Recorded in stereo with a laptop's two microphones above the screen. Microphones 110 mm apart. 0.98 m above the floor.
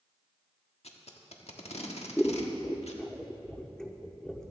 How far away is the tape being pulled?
About 1.4 m.